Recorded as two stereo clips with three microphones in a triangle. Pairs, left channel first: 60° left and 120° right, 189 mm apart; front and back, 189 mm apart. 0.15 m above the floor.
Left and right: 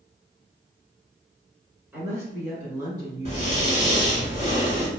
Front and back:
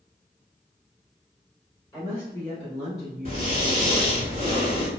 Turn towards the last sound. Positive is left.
turn(degrees=-160)